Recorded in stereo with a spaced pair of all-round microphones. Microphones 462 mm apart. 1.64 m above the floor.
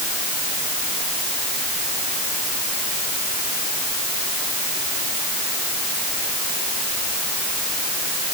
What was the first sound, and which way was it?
Only background noise.